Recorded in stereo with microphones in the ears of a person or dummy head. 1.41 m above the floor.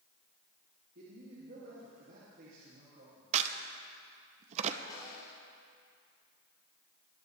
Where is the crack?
40° right (ahead or behind), 0.7 m.